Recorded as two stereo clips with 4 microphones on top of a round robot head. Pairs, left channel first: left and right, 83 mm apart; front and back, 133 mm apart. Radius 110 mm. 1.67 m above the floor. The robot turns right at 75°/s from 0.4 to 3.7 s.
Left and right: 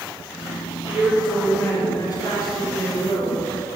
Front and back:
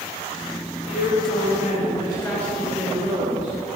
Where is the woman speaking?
30° right, 5.5 m; by 3.8 s straight behind, 5.5 m.